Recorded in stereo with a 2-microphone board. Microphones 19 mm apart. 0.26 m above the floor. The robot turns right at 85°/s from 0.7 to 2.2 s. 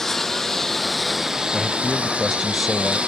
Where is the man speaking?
15° right (ahead or behind); by 3.0 s 10° left (ahead or behind).